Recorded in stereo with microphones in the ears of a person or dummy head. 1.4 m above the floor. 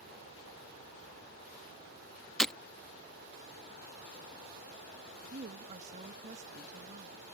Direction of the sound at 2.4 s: 10° left (ahead or behind).